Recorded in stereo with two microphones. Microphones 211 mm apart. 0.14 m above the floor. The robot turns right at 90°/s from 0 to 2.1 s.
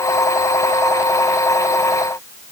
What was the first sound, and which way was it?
Only background noise.